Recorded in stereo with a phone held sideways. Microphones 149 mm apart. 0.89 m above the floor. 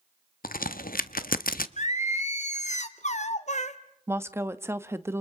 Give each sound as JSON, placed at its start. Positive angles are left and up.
{"t": 0.4, "sound": "a crack", "side_deg": 75, "distance_m": 0.7}
{"t": 1.8, "sound": "singing", "side_deg": 50, "distance_m": 1.1}
{"t": 4.1, "sound": "a woman speaking", "side_deg": -15, "distance_m": 0.9}